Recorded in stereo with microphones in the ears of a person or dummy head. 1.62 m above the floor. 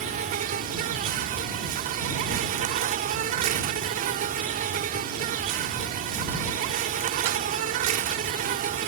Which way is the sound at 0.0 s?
45° right (ahead or behind).